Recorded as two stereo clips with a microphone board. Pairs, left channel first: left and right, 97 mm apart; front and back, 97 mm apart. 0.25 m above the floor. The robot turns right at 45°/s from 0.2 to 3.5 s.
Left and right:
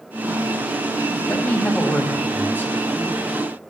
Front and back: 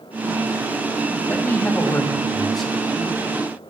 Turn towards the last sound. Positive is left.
turn(degrees=130)